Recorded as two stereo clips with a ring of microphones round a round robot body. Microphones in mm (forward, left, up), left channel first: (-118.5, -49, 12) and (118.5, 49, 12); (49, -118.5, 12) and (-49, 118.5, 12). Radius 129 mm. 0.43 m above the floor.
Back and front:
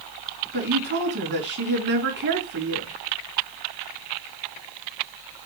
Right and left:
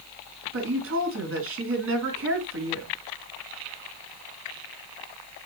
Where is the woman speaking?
70° left, 3.5 m.